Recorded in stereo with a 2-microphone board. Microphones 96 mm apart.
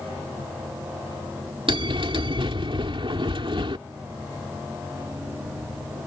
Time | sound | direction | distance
1.7 | a bell | 65° right (ahead or behind) | ?